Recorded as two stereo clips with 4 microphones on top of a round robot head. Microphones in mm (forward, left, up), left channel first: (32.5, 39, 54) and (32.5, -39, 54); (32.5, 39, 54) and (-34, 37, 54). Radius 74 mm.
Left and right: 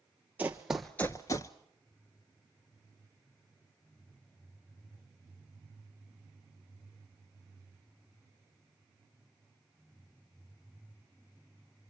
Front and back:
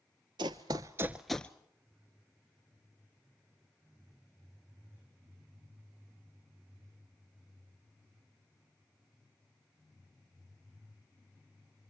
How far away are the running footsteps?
About 0.9 m.